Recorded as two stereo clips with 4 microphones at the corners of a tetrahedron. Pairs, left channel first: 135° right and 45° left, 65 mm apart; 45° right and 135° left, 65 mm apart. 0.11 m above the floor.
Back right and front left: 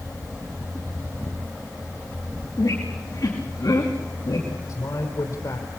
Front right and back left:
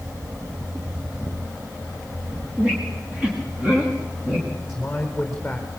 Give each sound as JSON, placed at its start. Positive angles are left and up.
{"t": 2.6, "sound": "a squeak", "azimuth_deg": -150, "distance_m": 6.0}
{"t": 4.7, "sound": "a man speaking", "azimuth_deg": -130, "distance_m": 3.5}